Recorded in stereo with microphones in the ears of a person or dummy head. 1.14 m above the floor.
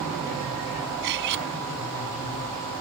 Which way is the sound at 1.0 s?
65° right (ahead or behind).